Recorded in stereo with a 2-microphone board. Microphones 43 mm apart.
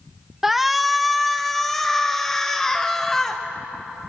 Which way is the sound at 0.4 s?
10° right (ahead or behind).